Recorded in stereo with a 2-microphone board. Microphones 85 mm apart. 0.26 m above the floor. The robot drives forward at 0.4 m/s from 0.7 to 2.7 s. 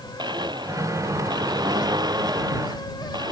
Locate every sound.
0.2 s a blender: 60° right (ahead or behind); by 3.3 s 55° right (ahead or behind)